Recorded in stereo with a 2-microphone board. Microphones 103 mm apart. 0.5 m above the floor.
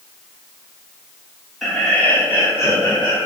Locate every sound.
1.6 s laughter: centre (ahead or behind), 1.0 m; by 3.3 s 40° left (ahead or behind), 1.2 m